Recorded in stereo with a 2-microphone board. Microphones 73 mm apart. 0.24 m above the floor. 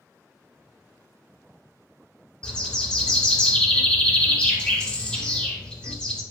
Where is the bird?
15° left (ahead or behind), 0.7 m.